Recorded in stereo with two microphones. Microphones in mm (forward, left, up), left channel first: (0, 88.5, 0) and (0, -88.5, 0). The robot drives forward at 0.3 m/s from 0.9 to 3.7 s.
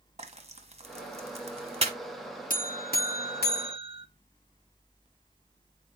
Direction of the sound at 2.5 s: 50° left (ahead or behind).